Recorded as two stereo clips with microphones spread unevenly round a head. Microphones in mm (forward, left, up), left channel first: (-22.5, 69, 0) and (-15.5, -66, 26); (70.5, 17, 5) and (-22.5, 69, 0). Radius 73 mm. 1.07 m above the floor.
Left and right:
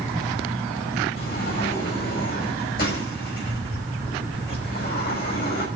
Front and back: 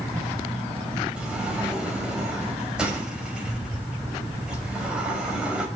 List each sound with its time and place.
1.2 s a sliding door: 65° left, 5.5 m